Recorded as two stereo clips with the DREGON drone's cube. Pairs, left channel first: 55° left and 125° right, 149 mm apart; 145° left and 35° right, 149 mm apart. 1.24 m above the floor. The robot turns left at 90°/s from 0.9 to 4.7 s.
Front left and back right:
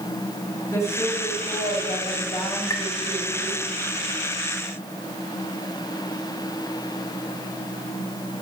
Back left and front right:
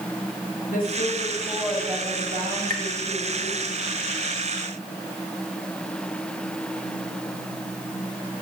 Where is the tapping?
10° right, 1.9 m; by 2.9 s 25° right, 1.9 m.